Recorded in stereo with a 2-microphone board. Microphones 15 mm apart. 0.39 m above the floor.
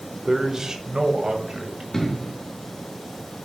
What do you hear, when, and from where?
0.2 s a man speaking: 25° right (ahead or behind), 0.9 m; by 1.8 s 50° right (ahead or behind), 2.5 m
1.9 s an explosion: 35° left (ahead or behind), 2.5 m